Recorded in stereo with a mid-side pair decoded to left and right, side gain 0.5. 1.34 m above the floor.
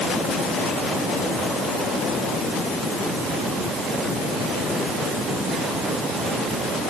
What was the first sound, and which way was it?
Only background noise.